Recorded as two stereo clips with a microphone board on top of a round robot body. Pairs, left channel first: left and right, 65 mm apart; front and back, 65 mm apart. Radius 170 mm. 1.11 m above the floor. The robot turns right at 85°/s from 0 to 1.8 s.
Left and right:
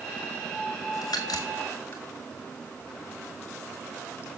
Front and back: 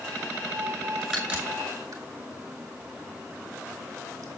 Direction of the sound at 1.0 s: 85° left.